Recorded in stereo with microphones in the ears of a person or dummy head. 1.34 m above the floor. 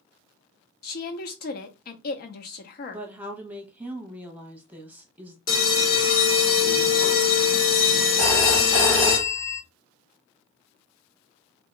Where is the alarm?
50° left (ahead or behind), 1.9 m.